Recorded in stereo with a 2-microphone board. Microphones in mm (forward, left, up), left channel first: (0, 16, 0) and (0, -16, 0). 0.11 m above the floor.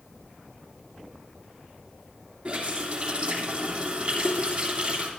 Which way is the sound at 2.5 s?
30° right (ahead or behind).